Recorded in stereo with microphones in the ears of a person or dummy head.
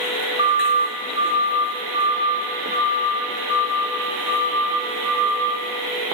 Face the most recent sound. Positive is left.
turn(degrees=-20)  # may be behind; listen again after turning